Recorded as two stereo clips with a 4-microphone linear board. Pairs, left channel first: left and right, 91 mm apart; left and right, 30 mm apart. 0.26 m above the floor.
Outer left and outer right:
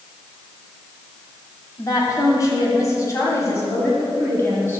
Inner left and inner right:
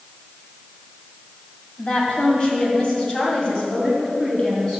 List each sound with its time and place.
1.8 s a woman speaking: 40° left (ahead or behind), 1.8 m; by 4.8 s 25° left (ahead or behind), 2.5 m